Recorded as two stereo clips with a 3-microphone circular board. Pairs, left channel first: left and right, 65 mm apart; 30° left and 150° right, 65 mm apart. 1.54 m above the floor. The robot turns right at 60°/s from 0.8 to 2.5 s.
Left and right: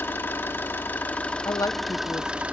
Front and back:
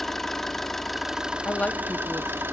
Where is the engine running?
115° left, 1.2 m; by 2.5 s 145° right, 1.2 m.